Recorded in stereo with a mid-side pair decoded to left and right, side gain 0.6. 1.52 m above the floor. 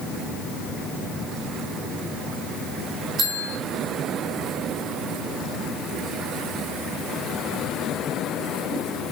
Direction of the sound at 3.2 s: 50° right.